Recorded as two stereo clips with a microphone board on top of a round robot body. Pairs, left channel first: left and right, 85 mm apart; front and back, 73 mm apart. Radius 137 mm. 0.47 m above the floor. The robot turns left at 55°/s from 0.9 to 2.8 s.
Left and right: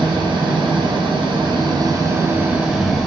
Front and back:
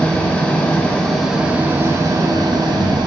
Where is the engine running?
75° right, 2.5 m; by 3.1 s 175° right, 2.5 m.